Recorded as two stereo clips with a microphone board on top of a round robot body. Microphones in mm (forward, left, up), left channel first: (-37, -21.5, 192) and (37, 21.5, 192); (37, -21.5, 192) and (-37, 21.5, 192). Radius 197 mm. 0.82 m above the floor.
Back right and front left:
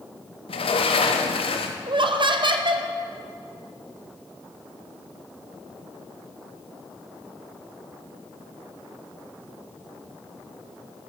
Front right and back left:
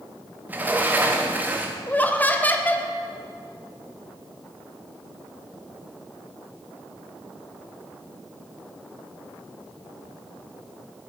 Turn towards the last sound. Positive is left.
turn(degrees=40)